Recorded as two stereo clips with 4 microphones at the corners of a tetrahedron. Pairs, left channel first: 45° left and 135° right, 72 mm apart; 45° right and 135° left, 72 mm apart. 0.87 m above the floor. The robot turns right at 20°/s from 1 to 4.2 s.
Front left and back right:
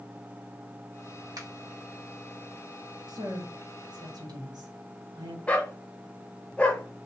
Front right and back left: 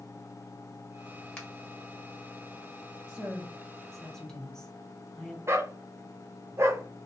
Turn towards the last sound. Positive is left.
turn(degrees=105)